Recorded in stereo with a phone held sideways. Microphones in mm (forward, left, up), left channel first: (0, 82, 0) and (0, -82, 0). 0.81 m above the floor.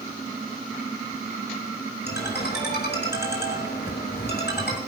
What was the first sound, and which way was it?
A ringtone, 85° left.